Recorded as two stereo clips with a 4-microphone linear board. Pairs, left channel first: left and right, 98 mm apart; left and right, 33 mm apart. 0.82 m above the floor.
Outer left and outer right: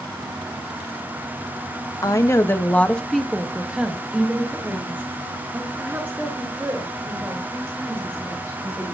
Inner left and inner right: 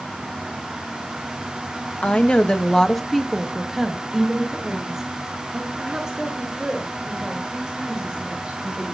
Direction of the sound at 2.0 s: 40° left (ahead or behind).